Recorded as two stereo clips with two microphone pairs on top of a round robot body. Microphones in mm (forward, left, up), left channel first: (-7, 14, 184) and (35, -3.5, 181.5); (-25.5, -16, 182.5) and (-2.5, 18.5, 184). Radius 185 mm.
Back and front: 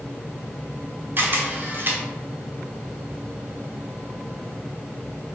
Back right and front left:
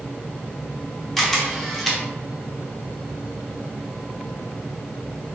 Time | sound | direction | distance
1.2 | a camera shutter | 45° right | 1.0 m